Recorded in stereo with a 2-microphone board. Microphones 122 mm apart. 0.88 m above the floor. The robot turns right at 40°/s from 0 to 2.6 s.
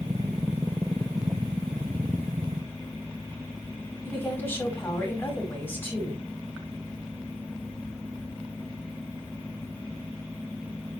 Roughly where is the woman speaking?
Centre.